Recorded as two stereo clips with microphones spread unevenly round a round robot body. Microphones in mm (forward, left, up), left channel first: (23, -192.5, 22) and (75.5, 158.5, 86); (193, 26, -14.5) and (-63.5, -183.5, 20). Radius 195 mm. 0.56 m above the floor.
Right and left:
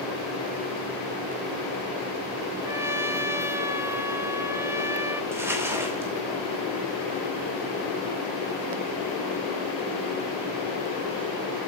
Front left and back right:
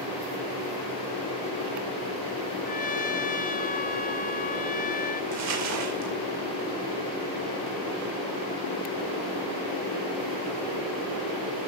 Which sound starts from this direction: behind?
Crumpling, at 5.3 s.